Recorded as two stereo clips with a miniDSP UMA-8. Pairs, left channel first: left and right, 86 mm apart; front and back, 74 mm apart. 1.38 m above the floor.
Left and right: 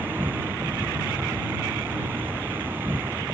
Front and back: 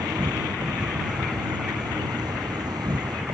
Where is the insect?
160° right.